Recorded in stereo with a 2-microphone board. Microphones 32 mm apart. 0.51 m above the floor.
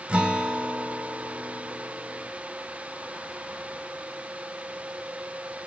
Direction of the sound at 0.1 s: 40° right (ahead or behind).